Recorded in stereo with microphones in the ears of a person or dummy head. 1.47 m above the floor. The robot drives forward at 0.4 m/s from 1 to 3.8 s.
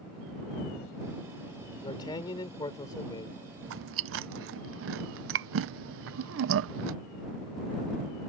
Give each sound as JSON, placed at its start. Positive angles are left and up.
{"t": 1.8, "sound": "a man speaking", "side_deg": 20}
{"t": 3.6, "sound": "chewing", "side_deg": -65}